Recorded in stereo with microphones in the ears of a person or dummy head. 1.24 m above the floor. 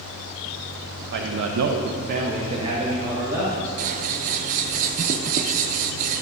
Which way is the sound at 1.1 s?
55° right (ahead or behind).